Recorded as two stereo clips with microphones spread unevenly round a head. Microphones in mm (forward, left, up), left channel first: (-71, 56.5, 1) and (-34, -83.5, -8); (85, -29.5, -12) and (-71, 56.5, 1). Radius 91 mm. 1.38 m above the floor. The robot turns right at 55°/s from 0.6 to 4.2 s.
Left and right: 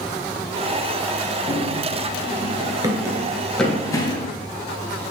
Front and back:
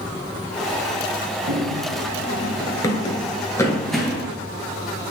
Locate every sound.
1.5 s running footsteps: 160° left, 1.8 m; by 4.3 s 85° left, 1.7 m